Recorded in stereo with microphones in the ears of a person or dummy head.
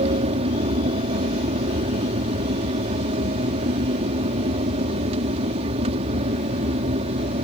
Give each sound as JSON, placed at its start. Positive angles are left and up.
{"t": 0.0, "sound": "an aircraft", "side_deg": -40}